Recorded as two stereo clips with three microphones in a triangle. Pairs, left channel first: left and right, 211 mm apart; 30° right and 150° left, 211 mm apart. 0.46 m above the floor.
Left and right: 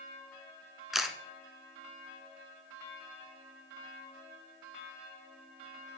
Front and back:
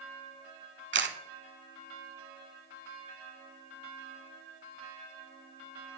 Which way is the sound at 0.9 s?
Straight behind.